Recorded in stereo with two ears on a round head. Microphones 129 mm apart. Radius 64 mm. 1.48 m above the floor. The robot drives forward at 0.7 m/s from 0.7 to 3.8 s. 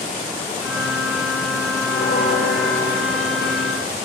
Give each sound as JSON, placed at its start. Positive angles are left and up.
{"t": 1.9, "sound": "a bell", "side_deg": 65, "distance_m": 5.0}